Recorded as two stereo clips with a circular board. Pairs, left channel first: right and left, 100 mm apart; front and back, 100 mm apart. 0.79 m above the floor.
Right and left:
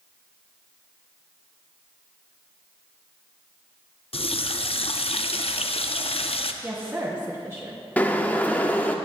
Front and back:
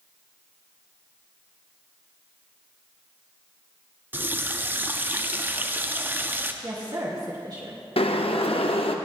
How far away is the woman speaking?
About 1.0 m.